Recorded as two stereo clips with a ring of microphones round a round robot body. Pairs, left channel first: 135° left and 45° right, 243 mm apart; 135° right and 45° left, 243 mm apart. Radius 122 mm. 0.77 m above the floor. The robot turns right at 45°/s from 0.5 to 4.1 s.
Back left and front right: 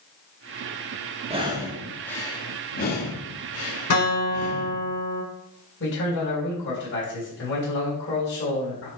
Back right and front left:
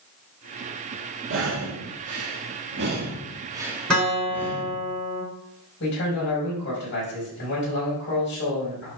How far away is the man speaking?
About 4.5 m.